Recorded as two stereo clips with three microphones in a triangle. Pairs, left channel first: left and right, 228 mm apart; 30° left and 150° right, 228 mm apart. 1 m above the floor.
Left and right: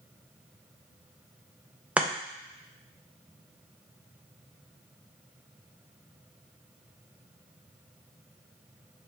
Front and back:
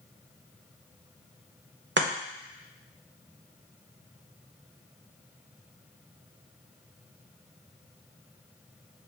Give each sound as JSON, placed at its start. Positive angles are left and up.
{"t": 2.0, "sound": "chopping", "azimuth_deg": -175, "distance_m": 0.6}